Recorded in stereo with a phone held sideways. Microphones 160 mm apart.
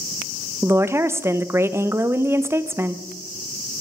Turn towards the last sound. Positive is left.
turn(degrees=-15)  # may be behind; listen again after turning